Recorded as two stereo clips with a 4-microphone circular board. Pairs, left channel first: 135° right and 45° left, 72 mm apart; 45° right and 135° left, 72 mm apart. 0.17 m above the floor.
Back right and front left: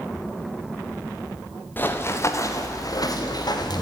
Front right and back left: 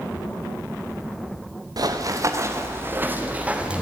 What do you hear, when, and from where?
1.8 s running footsteps: 160° left, 2.5 m; by 3.8 s 150° right, 4 m